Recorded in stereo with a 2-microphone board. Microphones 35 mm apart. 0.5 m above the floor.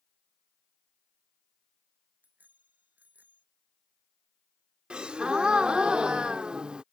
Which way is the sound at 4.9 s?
25° right (ahead or behind).